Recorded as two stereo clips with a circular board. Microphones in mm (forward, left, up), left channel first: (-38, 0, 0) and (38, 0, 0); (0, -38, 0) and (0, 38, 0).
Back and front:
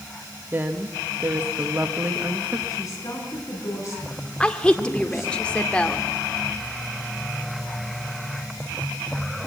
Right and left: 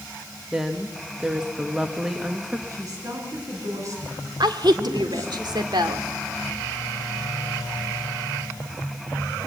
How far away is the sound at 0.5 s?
About 1.1 m.